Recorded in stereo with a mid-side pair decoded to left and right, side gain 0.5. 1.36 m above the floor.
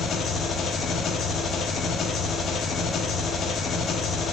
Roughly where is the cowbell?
No cowbell in this recording.